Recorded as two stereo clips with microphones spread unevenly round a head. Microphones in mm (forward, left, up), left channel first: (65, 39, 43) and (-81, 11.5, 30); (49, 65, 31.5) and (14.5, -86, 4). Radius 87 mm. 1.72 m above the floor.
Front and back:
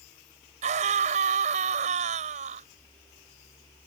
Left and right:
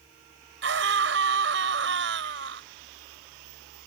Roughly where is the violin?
I don't hear a violin.